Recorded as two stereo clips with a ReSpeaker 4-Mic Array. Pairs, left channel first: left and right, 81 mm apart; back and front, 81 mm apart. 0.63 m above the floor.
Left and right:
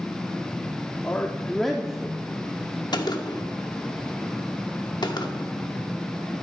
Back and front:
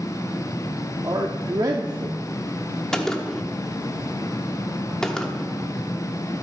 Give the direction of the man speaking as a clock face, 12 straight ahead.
11 o'clock.